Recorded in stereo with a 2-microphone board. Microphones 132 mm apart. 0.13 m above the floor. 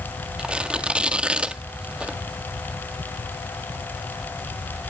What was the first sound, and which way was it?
Tearing paper, 10° right (ahead or behind).